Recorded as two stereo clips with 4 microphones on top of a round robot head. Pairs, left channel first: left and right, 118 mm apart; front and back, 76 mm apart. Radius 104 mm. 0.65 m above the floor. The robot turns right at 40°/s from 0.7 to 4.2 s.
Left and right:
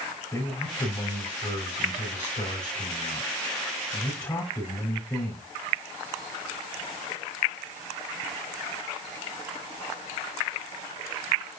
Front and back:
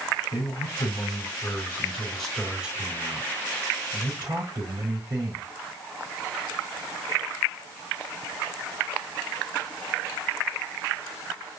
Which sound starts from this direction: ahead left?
A man speaking, at 0.3 s.